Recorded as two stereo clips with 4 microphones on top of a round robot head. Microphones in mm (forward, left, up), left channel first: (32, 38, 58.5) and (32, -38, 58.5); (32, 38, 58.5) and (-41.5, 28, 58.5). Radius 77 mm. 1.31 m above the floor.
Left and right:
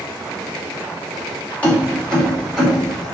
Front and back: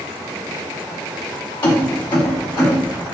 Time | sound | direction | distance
1.6 | keys jangling | 20° left | 1.5 m